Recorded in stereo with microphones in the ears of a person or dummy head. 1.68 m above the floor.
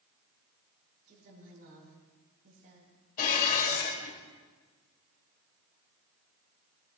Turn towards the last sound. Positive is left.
turn(degrees=50)  # may be behind; listen again after turning